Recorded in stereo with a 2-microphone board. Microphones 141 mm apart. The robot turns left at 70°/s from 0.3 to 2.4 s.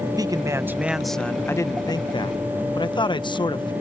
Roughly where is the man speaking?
Behind right.